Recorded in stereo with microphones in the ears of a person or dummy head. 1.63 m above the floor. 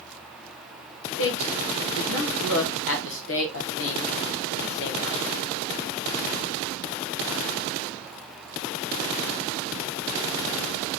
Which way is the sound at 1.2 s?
65° left (ahead or behind).